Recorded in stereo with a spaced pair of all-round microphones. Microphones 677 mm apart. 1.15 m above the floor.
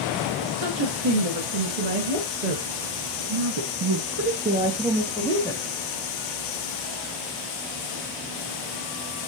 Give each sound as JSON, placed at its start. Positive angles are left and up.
{"t": 0.4, "sound": "a woman speaking", "side_deg": -60, "distance_m": 3.0}